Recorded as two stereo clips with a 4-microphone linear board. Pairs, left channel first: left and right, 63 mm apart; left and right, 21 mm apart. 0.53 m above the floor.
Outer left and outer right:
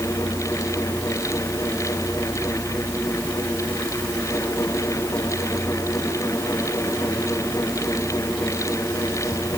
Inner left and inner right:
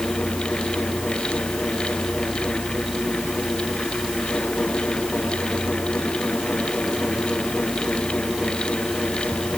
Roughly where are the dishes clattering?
I don't hear dishes clattering.